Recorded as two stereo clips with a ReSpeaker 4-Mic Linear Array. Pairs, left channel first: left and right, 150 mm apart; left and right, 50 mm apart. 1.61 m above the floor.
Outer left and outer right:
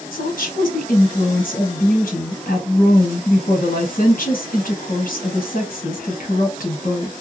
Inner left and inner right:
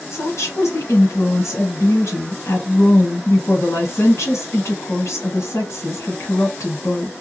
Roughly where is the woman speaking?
Left.